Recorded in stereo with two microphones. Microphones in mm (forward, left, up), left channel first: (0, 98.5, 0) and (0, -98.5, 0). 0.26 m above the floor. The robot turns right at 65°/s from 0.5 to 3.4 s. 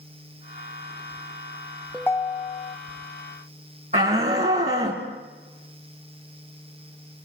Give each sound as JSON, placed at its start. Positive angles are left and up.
{"t": 1.9, "sound": "a ringtone", "azimuth_deg": 5, "distance_m": 0.7}
{"t": 3.9, "sound": "a shout", "side_deg": -35, "distance_m": 2.5}